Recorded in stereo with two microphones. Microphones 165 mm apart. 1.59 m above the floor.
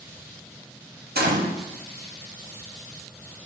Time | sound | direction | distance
1.1 | a gunshot | 75° right (ahead or behind) | 0.6 m